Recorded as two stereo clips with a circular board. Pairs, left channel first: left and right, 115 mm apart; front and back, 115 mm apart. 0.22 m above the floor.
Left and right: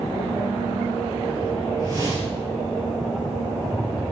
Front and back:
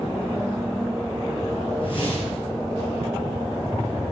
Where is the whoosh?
35° right, 2.5 m.